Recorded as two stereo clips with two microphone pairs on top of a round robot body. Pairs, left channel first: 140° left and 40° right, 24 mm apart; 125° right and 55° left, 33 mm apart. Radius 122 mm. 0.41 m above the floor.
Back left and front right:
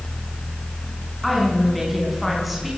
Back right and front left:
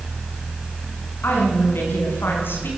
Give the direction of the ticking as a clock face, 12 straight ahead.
No ticking in this recording.